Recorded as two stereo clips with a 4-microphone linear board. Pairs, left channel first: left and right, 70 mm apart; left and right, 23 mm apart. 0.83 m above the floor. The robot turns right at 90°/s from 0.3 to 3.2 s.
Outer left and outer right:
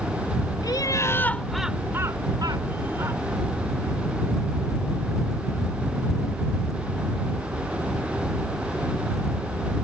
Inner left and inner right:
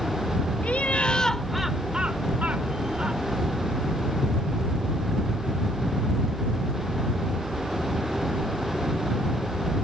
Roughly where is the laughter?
Left.